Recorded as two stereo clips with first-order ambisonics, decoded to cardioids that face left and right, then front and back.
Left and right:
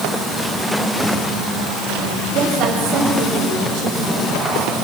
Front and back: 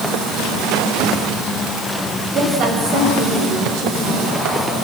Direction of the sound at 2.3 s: 135° right.